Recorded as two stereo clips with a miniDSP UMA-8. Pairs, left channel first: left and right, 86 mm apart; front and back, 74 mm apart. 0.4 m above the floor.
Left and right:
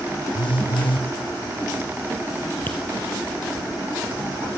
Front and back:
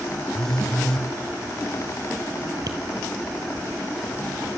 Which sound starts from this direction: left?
A phone buzzing, at 0.3 s.